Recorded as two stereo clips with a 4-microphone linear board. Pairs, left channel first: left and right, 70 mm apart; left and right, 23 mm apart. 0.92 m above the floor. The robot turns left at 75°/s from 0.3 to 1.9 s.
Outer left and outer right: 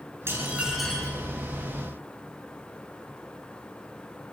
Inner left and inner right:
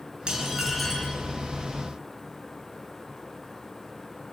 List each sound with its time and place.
0.3 s dishes clattering: 140° right, 9 m; by 1.2 s 155° left, 9 m